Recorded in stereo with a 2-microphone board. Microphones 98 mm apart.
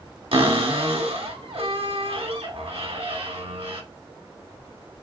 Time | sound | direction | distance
0.3 | a cupboard door | 70° right (ahead or behind) | 1.0 m